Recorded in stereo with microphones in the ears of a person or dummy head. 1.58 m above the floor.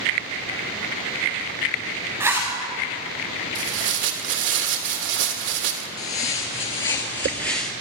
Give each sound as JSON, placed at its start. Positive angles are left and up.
{"t": 2.2, "sound": "a zipper", "side_deg": -10, "distance_m": 4.0}
{"t": 3.5, "sound": "tearing paper", "side_deg": -55, "distance_m": 1.6}
{"t": 6.0, "sound": "footsteps", "side_deg": 35, "distance_m": 1.8}